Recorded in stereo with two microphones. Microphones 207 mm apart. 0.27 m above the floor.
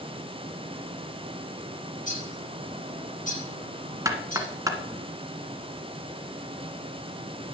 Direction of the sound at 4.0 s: 15° right (ahead or behind).